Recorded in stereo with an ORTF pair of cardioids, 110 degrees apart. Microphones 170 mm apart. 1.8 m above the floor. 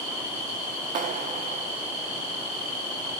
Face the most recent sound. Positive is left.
turn(degrees=-50)